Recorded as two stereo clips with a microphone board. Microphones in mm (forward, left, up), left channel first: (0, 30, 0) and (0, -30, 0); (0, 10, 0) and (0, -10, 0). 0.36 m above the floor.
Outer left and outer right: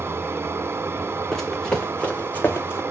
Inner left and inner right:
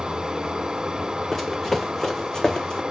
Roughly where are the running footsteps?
Centre.